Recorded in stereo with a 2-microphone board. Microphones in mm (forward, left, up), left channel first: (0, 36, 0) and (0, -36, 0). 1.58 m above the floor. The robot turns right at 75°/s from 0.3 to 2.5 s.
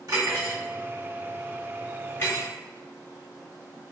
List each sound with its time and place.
0.1 s cutlery clinking: 60° right (ahead or behind), 1.5 m; by 2.5 s 50° left (ahead or behind), 1.5 m